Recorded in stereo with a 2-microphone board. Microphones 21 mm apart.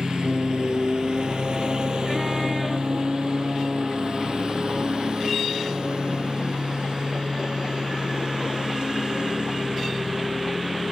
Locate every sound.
0.0 s a lawn mower: 50° right (ahead or behind)